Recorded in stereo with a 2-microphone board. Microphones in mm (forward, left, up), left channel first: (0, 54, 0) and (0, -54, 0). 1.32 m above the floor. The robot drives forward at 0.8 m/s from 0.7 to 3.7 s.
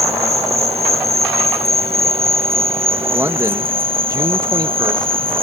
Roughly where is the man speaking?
Right.